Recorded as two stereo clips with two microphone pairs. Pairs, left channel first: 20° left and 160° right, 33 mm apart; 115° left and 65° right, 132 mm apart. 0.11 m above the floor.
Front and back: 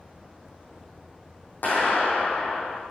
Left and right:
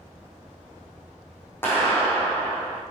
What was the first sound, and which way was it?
A clap, 40° left.